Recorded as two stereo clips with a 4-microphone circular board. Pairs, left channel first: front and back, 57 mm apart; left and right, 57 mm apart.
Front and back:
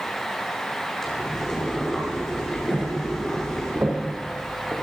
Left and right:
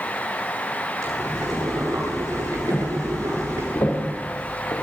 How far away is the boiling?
About 9 m.